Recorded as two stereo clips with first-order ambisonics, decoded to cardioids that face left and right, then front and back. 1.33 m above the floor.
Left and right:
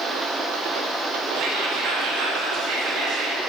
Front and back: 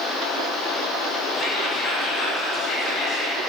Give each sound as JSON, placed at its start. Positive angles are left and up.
{"t": 1.3, "sound": "whispering", "azimuth_deg": -55, "distance_m": 0.8}